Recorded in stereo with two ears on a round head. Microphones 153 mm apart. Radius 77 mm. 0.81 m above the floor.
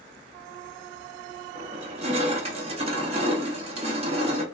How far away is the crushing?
About 0.9 m.